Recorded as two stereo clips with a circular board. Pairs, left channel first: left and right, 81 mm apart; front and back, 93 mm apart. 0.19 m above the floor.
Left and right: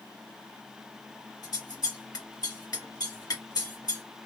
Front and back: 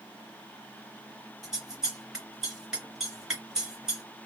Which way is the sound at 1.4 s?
100° left.